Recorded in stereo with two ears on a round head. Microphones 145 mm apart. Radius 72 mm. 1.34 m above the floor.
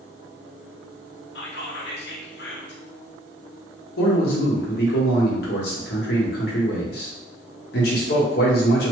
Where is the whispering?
70° left (ahead or behind), 0.9 m.